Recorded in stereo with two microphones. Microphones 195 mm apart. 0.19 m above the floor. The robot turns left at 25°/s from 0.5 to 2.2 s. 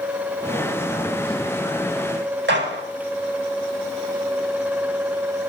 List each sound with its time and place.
2.5 s a gunshot: 75° right (ahead or behind), 4.5 m